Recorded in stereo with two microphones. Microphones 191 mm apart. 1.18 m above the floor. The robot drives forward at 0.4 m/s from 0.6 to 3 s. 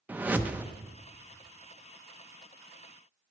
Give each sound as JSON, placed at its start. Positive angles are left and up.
{"t": 0.1, "sound": "a whoosh", "side_deg": -10, "distance_m": 0.7}